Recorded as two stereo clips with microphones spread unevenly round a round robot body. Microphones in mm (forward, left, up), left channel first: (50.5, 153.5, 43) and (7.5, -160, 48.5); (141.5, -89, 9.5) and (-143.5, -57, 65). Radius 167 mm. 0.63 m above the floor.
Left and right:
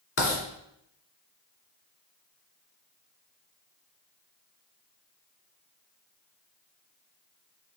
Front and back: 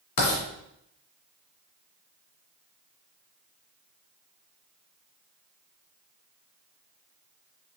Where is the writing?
30° left, 2 m.